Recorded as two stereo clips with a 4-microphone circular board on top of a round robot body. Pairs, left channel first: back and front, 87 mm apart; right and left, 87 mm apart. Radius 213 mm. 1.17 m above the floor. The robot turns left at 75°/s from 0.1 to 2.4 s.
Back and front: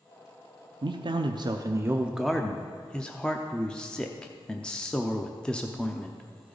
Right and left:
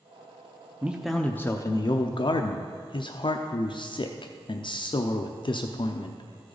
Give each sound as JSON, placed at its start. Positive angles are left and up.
{"t": 0.8, "sound": "a man speaking", "azimuth_deg": 20, "distance_m": 0.7}